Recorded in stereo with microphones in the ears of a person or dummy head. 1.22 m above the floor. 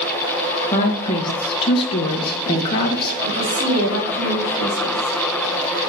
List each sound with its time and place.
0.7 s a woman speaking: 30° left (ahead or behind), 1.2 m
3.2 s a woman speaking: 50° right (ahead or behind), 2.5 m